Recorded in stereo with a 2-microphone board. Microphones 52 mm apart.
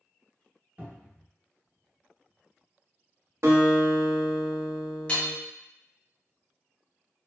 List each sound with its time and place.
0.8 s a cupboard door: 30° right (ahead or behind), 0.8 m
3.4 s a guitar: 65° right (ahead or behind), 0.7 m
5.1 s hammering: 25° left (ahead or behind), 0.6 m